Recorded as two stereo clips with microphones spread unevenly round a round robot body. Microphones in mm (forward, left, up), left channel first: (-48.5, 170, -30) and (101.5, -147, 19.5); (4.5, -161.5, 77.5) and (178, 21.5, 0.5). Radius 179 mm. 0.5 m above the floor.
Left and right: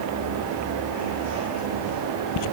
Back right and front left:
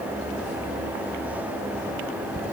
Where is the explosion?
No explosion in this recording.